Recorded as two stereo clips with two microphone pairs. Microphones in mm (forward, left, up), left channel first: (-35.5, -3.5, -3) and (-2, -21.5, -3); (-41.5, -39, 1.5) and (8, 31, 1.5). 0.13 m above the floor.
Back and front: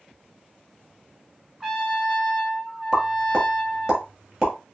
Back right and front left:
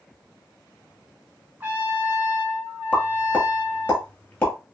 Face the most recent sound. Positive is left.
turn(degrees=-80)